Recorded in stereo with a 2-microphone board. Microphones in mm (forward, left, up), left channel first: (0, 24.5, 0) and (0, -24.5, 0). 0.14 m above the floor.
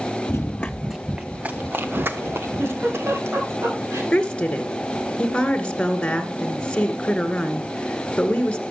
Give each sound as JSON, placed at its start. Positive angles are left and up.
{"t": 0.3, "sound": "running footsteps", "side_deg": 50, "distance_m": 0.9}
{"t": 2.6, "sound": "a giggle", "side_deg": -60, "distance_m": 9.0}
{"t": 4.1, "sound": "a woman speaking", "side_deg": 20, "distance_m": 2.0}